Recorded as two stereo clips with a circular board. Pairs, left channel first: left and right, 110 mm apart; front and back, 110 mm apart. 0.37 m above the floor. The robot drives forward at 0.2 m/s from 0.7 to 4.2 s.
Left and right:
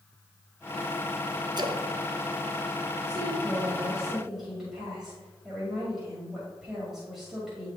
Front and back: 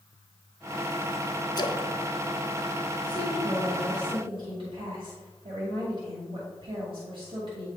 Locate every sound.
1.6 s a splash: 45° right, 0.6 m; by 1.9 s 50° right, 0.5 m
3.0 s a woman speaking: 170° right, 1.7 m; by 7.7 s 175° right, 1.8 m